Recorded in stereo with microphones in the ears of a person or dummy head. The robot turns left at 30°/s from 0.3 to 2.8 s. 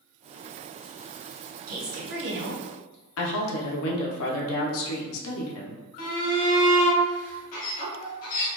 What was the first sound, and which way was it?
A woman speaking, 55° right.